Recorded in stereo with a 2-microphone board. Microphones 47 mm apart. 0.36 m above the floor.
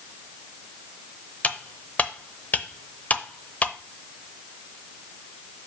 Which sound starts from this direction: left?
Cutlery clinking, at 1.4 s.